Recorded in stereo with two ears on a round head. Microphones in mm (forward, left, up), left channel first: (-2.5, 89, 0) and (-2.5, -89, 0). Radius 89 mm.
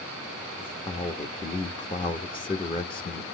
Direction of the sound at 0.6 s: 25° left (ahead or behind).